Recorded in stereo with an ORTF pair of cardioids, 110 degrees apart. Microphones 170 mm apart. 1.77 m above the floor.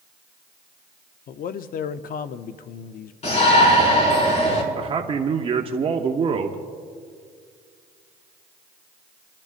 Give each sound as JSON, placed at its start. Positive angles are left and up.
{"t": 1.3, "sound": "a man speaking", "azimuth_deg": 55, "distance_m": 0.6}
{"t": 3.2, "sound": "a shout", "azimuth_deg": 40, "distance_m": 5.5}
{"t": 4.8, "sound": "a man speaking", "azimuth_deg": -35, "distance_m": 0.9}